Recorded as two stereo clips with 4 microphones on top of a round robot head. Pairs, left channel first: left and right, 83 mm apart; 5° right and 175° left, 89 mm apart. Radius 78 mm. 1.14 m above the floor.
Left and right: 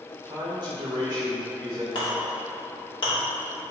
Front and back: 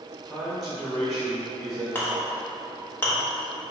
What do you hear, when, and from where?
0.2 s a man speaking: 95° right, 1.6 m
1.9 s a clink: 60° left, 1.1 m